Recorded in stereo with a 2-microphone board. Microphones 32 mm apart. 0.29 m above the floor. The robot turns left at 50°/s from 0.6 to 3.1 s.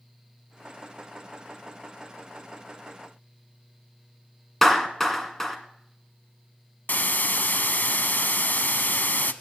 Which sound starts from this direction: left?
A hiss, at 6.9 s.